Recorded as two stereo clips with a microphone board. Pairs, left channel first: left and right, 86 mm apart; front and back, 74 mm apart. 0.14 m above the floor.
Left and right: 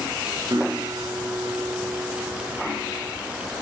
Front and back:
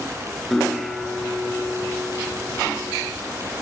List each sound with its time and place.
0.5 s a guitar: 85° right, 1.3 m